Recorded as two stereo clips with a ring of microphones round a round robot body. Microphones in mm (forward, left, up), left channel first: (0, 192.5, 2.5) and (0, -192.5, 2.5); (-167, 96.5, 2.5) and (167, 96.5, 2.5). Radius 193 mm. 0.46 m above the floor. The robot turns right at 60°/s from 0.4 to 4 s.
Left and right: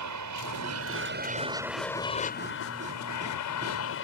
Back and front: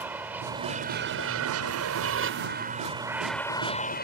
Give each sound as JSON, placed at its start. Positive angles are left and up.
{"t": 0.0, "sound": "an aircraft", "azimuth_deg": -85}